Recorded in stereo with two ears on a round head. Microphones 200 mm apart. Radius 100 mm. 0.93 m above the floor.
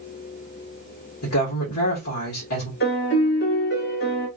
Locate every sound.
1.2 s a woman speaking: 70° left (ahead or behind), 1.8 m
2.8 s a piano: 50° left (ahead or behind), 2 m